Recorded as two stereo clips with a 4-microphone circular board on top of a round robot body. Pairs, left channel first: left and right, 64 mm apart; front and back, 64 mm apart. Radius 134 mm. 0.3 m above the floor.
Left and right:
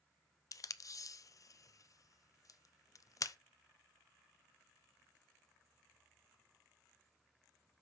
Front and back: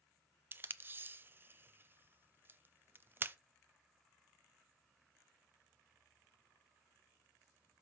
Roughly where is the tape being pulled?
Behind left.